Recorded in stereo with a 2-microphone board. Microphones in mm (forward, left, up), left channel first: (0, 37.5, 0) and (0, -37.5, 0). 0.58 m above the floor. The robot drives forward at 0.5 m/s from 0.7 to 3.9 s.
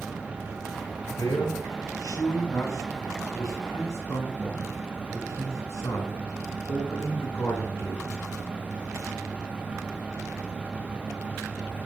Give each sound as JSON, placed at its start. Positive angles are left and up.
{"t": 1.1, "sound": "a man speaking", "side_deg": 60, "distance_m": 6.5}